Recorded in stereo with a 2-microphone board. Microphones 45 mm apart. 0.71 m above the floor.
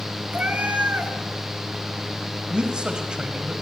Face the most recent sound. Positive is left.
turn(degrees=-20)  # may be behind; listen again after turning